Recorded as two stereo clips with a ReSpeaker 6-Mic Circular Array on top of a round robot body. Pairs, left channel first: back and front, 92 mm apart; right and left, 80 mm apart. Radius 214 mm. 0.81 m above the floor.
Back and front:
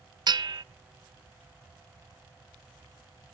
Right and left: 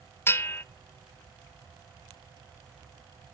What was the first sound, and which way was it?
A bell, 35° right.